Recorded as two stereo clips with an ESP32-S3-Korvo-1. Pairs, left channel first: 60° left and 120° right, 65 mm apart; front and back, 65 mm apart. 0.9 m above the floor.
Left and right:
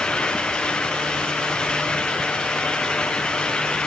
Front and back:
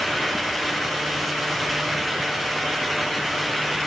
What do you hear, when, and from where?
Only background noise.